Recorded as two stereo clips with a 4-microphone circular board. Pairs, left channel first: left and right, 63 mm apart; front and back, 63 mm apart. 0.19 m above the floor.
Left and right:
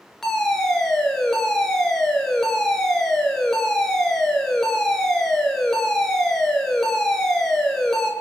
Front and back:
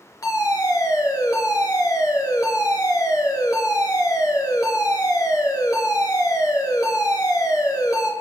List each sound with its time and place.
0.2 s a fire alarm: 5° left, 5 m